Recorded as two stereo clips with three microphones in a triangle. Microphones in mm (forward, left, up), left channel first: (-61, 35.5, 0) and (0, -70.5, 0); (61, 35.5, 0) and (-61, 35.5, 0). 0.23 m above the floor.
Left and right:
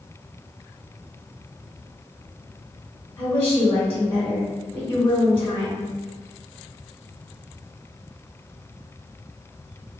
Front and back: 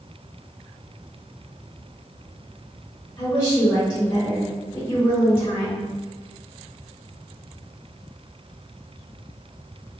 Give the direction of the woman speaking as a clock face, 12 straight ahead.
10 o'clock.